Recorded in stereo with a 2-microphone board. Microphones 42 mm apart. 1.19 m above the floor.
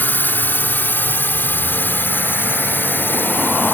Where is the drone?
55° left (ahead or behind); by 3.7 s 60° left (ahead or behind).